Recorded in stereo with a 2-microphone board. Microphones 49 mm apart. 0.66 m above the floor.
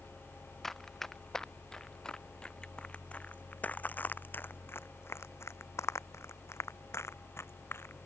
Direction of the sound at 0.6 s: 10° left (ahead or behind).